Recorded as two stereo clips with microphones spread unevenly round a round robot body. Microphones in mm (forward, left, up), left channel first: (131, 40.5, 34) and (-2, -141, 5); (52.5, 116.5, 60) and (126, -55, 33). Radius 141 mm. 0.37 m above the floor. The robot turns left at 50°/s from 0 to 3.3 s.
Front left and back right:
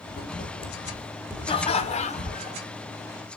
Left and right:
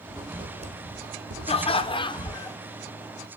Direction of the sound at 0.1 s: 15° left.